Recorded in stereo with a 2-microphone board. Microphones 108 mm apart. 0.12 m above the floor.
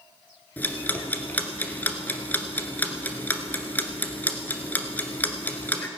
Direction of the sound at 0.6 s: 15° left (ahead or behind).